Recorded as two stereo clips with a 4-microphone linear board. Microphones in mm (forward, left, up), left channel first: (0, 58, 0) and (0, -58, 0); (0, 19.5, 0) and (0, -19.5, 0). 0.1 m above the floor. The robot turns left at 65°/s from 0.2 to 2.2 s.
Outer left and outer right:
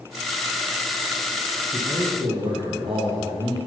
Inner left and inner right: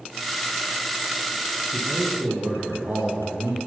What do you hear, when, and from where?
1.7 s a man speaking: 25° right, 3.5 m; by 3.6 s 55° right, 3.5 m